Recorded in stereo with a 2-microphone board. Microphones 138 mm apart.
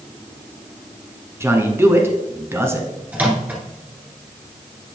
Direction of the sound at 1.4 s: 20° right (ahead or behind).